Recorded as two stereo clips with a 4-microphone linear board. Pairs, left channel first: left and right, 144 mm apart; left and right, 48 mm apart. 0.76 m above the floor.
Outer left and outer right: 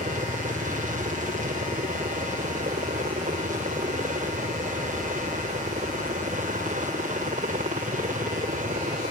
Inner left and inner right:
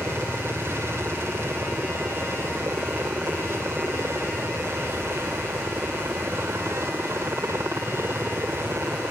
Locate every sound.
0.0 s a helicopter: 65° right (ahead or behind)